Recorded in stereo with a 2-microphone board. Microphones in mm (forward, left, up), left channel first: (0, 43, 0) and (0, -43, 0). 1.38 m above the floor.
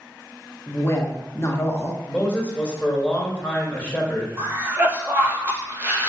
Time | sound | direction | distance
0.7 | a woman speaking | 35° left (ahead or behind) | 1.1 m
2.1 | a man speaking | 15° left (ahead or behind) | 1.5 m
4.4 | a cough | 30° right (ahead or behind) | 1.2 m